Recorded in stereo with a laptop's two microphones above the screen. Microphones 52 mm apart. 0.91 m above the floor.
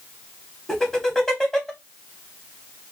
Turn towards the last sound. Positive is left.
turn(degrees=0)  # may be behind; listen again after turning